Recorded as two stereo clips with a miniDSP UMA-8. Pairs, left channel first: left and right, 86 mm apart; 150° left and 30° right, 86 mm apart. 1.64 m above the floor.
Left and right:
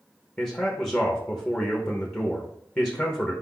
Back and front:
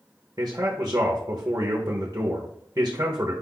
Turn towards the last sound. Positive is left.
turn(degrees=20)